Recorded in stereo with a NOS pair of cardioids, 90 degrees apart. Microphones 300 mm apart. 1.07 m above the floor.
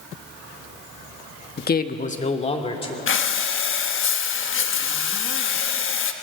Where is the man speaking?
35° left, 1.3 m; by 3.0 s 20° left, 3 m.